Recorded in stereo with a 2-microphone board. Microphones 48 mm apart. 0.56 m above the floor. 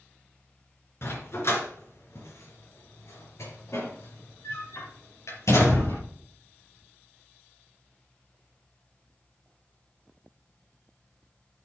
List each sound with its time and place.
1.0 s a dog barking: 55° left (ahead or behind), 3 m; by 6.0 s 80° left, 5.5 m